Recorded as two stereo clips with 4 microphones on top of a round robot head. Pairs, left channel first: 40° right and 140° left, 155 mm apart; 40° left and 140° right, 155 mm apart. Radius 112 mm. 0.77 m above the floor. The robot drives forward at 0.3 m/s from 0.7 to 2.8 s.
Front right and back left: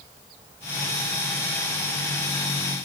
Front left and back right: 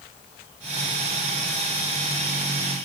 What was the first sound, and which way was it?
Only background noise.